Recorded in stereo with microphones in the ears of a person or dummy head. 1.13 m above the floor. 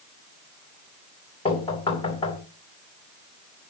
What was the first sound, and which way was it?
Knocking, 25° left (ahead or behind).